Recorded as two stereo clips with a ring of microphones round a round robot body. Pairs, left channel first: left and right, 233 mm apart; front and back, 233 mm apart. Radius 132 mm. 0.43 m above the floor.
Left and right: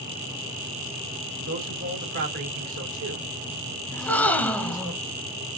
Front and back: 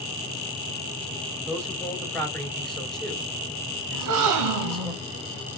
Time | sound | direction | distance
1.5 | a man speaking | 85° right | 2.5 m
3.9 | a gasp | 175° left | 0.8 m